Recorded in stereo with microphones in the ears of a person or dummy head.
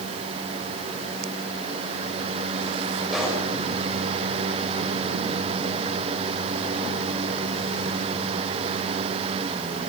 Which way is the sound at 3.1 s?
Centre (ahead or behind).